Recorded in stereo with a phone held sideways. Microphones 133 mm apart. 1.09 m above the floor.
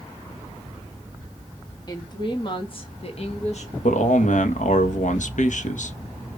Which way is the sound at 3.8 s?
70° left (ahead or behind).